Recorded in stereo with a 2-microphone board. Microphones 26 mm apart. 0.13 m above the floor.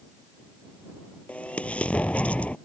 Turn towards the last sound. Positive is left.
turn(degrees=60)  # may be behind; listen again after turning